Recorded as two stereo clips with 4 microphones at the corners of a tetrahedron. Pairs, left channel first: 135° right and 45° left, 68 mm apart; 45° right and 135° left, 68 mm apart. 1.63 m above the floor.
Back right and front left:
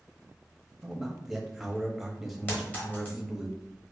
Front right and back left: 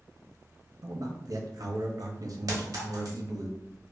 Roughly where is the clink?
Behind.